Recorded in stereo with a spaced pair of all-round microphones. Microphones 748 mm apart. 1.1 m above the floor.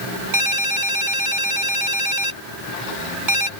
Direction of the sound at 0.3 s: 85° right.